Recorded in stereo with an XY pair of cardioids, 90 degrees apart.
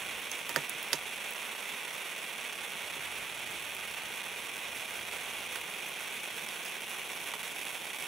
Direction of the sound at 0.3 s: 65° right.